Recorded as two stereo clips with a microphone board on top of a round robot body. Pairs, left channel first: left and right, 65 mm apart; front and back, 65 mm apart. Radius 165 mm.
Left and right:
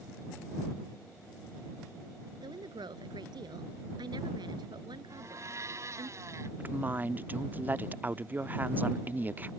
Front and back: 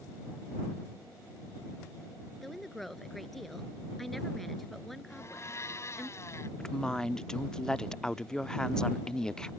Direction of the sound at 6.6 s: 70° right.